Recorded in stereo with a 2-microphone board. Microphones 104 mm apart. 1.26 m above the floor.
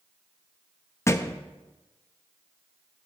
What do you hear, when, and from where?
1.1 s a thud: 25° left (ahead or behind), 0.6 m